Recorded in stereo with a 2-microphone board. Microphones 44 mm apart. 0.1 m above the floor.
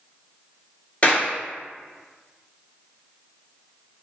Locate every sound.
1.0 s a clap: 40° left (ahead or behind), 1.3 m